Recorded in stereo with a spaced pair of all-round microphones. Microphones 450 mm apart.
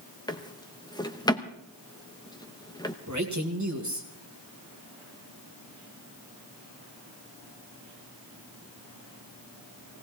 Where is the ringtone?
No ringtone in this recording.